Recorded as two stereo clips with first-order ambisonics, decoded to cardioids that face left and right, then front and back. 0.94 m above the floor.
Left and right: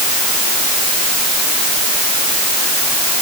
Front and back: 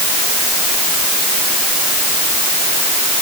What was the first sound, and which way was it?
Only background noise.